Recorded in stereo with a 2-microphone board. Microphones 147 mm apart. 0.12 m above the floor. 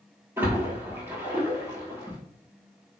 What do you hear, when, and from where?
0.4 s a splash: 15° right (ahead or behind), 1.1 m